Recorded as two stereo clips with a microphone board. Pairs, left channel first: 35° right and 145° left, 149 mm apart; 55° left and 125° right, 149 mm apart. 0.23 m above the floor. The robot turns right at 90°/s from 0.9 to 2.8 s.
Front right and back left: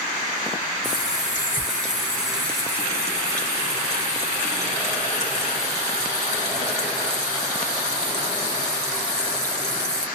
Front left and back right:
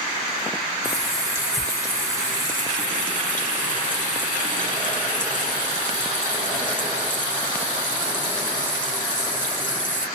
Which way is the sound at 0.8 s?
95° right.